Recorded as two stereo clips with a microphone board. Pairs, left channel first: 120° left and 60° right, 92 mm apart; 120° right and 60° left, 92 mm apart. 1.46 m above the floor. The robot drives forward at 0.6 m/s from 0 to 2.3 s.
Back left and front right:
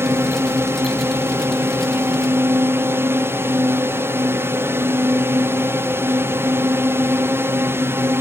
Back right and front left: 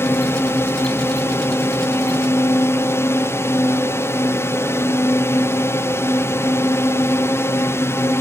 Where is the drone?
90° right; by 8.2 s 95° right.